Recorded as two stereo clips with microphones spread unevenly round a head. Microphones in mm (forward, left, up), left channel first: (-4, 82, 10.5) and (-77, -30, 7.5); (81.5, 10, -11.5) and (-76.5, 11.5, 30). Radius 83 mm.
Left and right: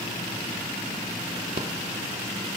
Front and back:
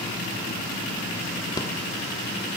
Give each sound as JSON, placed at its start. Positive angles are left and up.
{"t": 1.6, "sound": "a rattle", "azimuth_deg": -75, "distance_m": 1.2}